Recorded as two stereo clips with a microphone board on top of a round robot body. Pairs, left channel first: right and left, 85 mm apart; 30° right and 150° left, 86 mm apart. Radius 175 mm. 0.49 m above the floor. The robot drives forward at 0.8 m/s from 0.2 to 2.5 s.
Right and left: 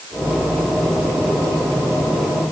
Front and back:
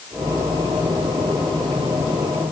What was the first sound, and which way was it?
Only background noise.